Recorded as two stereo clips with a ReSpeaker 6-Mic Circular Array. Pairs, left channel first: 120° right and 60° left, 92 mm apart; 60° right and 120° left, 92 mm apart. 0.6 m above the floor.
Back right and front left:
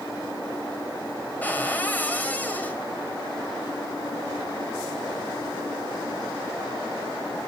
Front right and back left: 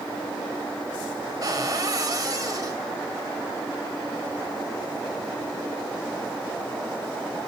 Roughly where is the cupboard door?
Behind.